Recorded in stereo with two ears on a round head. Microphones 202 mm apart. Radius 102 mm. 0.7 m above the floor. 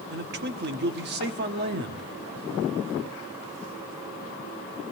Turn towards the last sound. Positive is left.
turn(degrees=-45)  # may be behind; listen again after turning